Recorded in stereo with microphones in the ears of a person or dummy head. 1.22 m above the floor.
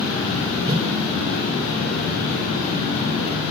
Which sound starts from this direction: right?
A whoosh, at 0.7 s.